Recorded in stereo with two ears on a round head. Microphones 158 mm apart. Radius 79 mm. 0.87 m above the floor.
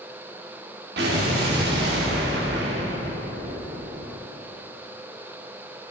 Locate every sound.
1.0 s an explosion: 70° right (ahead or behind), 1.4 m